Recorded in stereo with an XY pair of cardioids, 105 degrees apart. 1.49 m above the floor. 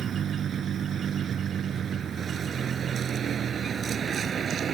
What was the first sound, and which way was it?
A vehicle, 55° right.